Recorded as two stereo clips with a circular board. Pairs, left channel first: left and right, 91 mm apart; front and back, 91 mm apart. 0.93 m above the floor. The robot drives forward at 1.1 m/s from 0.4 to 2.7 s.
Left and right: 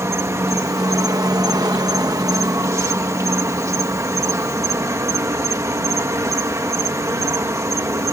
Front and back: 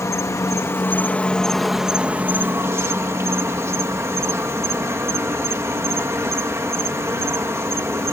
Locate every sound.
0.0 s an insect: 40° right; by 8.1 s 135° right